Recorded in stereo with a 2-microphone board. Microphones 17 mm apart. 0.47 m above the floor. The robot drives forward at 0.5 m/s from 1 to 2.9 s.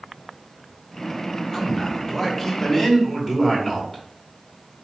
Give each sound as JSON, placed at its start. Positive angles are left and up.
{"t": 1.5, "sound": "a man speaking", "side_deg": 20, "distance_m": 0.8}